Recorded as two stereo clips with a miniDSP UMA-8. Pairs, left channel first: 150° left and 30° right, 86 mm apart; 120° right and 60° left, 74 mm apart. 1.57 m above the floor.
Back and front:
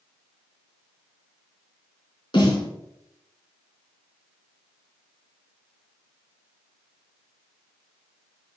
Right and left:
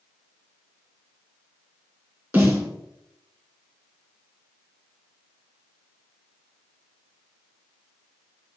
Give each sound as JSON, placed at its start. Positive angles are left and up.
{"t": 2.3, "sound": "a snare drum", "azimuth_deg": 120, "distance_m": 2.5}